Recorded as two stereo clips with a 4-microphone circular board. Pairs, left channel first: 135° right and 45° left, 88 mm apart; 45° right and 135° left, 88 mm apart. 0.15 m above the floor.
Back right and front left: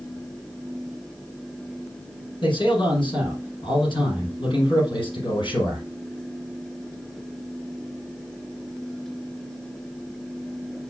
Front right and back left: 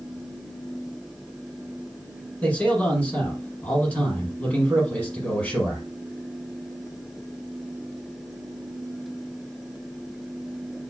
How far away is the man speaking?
About 4.5 m.